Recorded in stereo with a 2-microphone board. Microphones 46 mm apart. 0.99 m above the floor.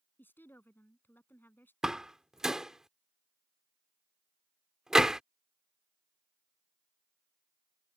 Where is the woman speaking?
45° left (ahead or behind).